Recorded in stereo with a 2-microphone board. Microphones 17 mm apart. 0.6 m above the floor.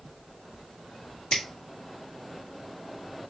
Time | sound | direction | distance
1.3 | a finger snap | 65° left (ahead or behind) | 1.6 m